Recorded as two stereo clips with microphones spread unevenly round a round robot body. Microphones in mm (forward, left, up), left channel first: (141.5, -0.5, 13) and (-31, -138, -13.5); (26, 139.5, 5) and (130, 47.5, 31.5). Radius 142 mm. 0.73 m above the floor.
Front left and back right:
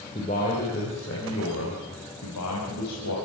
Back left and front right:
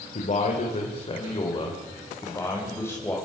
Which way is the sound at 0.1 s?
110° left.